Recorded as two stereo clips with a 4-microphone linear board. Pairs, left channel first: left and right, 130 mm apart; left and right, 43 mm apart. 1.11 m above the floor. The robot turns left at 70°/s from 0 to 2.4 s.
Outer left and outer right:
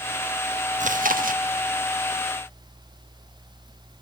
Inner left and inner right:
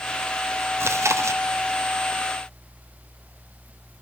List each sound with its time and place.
0.8 s chewing: 65° right, 1.1 m; by 1.4 s 105° right, 1.1 m